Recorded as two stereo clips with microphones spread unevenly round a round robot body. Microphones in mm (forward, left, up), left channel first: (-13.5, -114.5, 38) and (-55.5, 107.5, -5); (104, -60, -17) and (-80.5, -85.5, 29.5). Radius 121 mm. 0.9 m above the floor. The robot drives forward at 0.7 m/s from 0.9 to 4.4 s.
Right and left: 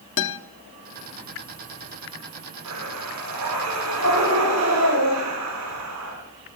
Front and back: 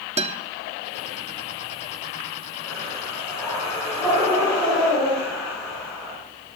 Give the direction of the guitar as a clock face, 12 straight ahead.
4 o'clock.